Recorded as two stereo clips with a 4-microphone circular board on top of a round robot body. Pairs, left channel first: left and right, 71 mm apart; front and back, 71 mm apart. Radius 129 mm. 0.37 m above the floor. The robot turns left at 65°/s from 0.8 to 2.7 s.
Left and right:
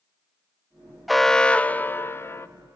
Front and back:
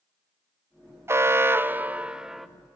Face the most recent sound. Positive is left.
turn(degrees=75)